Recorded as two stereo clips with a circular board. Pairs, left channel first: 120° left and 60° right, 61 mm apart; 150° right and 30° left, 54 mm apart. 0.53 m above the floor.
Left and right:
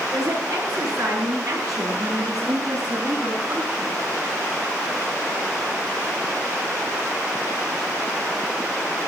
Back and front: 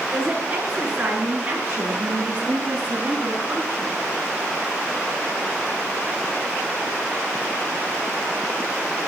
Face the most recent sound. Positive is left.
turn(degrees=-15)